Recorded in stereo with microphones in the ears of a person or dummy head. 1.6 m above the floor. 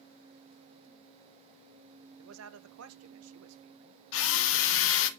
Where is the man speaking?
80° right, 1.0 m.